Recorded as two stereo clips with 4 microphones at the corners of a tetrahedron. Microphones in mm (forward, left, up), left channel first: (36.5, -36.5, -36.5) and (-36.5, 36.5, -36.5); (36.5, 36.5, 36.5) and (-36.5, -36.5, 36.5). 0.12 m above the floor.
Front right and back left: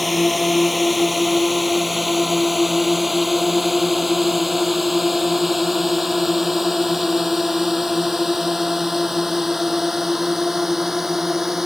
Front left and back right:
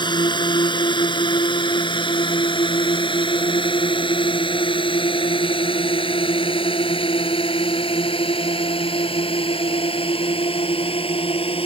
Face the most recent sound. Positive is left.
turn(degrees=50)